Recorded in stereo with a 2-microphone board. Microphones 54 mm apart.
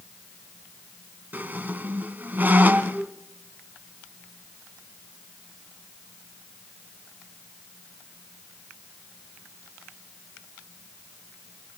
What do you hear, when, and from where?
1.3 s a squeak: 35° right (ahead or behind), 1.0 m